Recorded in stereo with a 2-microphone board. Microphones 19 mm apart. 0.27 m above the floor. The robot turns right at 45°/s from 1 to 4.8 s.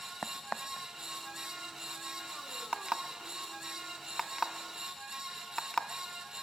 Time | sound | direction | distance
0.2 | a crack | 55° left (ahead or behind) | 0.8 m
2.7 | an alarm clock | 60° right (ahead or behind) | 1.0 m